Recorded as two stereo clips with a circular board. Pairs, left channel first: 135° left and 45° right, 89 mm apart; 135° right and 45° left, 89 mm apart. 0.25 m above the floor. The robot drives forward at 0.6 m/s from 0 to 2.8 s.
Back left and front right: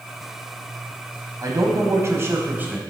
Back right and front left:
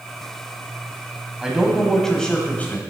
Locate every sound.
1.4 s a man speaking: 35° right, 1.4 m; by 2.8 s 95° right, 1.2 m